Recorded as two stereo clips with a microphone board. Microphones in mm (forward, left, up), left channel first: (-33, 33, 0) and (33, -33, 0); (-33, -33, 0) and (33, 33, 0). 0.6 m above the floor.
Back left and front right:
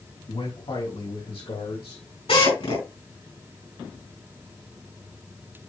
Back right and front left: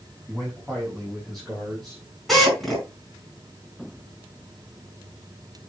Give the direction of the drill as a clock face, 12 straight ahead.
7 o'clock.